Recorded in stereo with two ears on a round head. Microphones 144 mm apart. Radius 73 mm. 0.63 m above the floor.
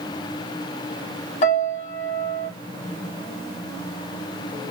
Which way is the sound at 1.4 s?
45° left (ahead or behind).